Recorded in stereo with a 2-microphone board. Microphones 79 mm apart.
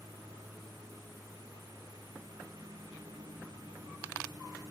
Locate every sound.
0.0 s a lawn mower: 55° right (ahead or behind)